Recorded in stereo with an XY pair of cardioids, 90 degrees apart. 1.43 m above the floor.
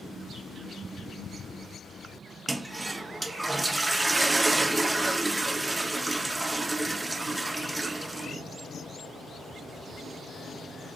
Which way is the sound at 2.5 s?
20° right.